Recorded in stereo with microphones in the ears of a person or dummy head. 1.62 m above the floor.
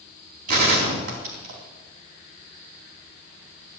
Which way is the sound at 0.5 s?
50° right (ahead or behind).